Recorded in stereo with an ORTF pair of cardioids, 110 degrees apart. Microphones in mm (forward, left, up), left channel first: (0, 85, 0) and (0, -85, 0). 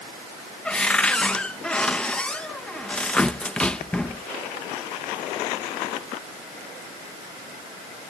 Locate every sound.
0.7 s a cupboard door: 5° left